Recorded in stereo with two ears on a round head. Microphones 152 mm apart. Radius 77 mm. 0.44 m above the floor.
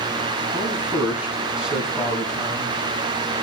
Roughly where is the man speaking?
Centre.